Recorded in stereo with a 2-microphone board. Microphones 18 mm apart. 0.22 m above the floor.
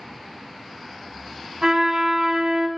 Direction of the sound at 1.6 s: 45° right (ahead or behind).